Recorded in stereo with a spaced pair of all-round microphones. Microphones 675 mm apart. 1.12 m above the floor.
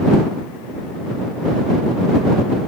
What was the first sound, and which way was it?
Only background noise.